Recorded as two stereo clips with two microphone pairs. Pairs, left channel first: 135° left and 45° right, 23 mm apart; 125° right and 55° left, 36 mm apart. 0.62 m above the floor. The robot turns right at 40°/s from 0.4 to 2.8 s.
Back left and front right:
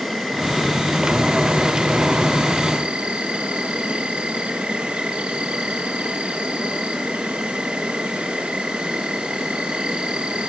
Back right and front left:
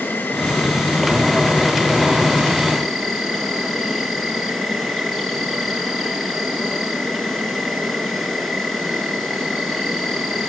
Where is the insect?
135° right, 5.5 m; by 10.5 s 40° right, 5.5 m.